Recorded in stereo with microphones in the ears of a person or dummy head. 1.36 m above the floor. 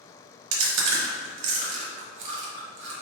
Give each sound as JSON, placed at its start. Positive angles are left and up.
{"t": 0.5, "sound": "chewing", "side_deg": -70, "distance_m": 1.1}